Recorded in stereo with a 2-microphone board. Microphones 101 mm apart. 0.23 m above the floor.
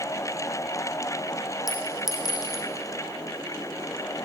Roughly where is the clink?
Left.